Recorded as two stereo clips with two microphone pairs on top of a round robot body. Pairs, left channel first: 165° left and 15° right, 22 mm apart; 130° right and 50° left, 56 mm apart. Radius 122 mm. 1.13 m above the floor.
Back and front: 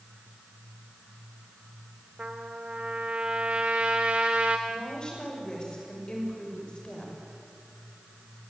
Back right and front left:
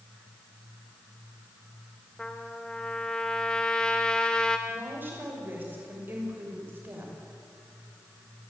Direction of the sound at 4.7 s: 105° left.